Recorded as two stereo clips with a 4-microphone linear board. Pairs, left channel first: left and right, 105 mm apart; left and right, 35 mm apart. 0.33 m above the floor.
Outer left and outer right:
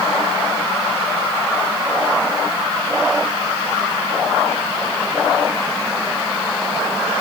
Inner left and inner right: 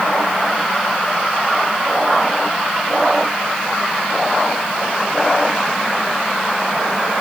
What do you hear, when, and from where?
Only background noise.